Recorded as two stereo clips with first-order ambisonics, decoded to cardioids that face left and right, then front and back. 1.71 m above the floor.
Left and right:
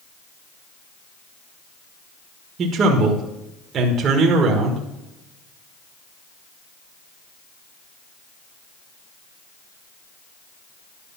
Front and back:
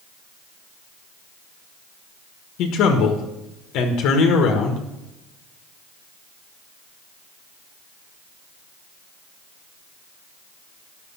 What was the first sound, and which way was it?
A man speaking, 35° right.